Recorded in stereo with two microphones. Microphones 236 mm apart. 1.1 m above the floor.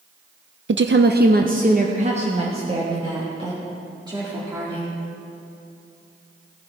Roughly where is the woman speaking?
Right.